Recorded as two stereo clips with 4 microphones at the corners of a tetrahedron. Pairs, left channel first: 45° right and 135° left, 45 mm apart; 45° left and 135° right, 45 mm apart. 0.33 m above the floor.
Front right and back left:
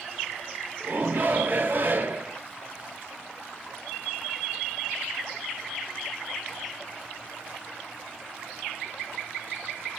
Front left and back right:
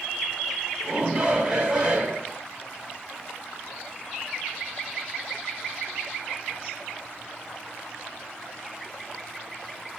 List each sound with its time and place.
0.8 s a shout: 155° left, 2.5 m